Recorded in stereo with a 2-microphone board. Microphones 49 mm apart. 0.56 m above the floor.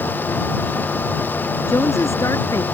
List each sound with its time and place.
1.7 s a woman speaking: 85° left